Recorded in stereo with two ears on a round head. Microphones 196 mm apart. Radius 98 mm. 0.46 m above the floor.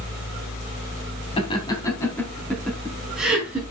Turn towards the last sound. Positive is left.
turn(degrees=-5)  # may be behind; listen again after turning